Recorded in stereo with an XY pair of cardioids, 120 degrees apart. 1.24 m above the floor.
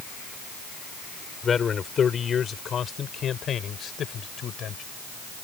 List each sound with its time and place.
1.4 s a man speaking: 35° left; by 4.8 s 55° left